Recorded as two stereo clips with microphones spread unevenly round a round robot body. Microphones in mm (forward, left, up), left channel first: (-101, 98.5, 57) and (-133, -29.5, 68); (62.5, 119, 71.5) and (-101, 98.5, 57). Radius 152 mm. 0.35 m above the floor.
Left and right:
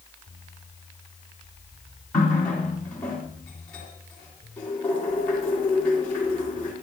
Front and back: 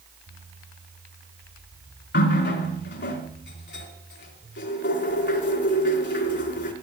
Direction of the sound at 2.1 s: 5° right.